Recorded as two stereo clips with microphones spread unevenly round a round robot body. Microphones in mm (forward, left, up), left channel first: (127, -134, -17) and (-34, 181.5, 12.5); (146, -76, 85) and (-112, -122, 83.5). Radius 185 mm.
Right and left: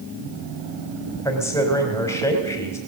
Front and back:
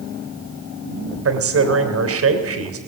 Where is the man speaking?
145° right, 3 m.